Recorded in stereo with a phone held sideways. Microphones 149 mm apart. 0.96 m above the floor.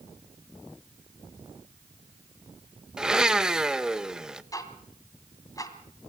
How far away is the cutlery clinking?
No cutlery clinking in this recording.